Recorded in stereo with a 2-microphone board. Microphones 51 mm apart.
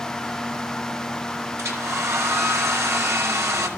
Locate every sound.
1.6 s a hair dryer: 70° right (ahead or behind), 2.5 m